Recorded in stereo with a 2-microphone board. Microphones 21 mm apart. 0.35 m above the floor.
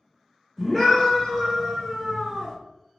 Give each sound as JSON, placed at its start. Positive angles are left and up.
{"t": 0.6, "sound": "a scream", "side_deg": -5, "distance_m": 1.2}